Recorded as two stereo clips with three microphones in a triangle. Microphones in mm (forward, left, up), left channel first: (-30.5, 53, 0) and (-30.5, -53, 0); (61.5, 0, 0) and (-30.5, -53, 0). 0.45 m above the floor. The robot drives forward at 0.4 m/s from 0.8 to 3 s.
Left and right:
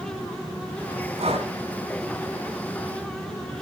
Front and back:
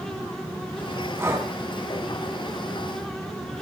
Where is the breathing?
85° right, 4 m; by 1.5 s 90° right, 4 m.